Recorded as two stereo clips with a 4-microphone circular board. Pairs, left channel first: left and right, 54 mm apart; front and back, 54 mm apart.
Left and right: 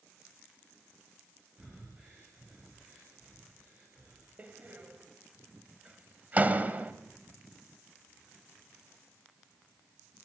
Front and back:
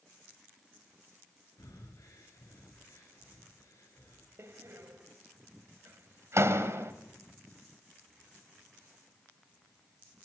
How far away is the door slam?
About 1.9 m.